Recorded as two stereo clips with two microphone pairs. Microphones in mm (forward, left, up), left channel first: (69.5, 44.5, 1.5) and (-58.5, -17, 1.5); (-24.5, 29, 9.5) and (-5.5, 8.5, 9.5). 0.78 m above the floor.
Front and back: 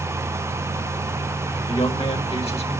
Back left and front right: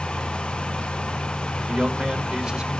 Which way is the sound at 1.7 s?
10° left.